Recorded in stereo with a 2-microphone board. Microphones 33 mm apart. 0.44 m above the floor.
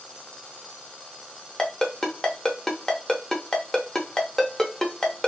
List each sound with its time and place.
1.6 s a ringtone: 15° left (ahead or behind), 0.7 m